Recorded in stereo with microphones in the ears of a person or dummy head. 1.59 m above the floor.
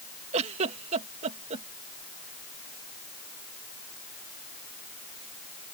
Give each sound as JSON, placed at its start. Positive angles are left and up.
{"t": 0.3, "sound": "a giggle", "side_deg": -35}